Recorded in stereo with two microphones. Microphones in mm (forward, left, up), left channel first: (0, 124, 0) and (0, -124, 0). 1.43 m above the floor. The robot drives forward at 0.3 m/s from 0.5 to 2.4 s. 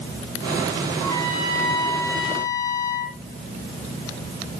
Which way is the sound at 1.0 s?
15° left (ahead or behind).